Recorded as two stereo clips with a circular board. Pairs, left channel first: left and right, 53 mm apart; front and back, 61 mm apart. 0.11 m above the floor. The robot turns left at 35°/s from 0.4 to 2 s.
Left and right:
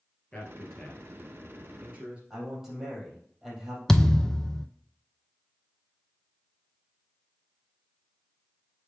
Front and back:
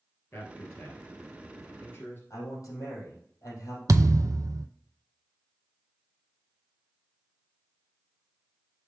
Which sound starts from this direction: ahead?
A man speaking, at 2.3 s.